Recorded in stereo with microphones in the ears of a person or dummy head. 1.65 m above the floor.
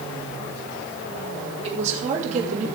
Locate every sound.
1.6 s a woman speaking: 35° right (ahead or behind), 4 m; by 2.7 s 40° right (ahead or behind), 2.5 m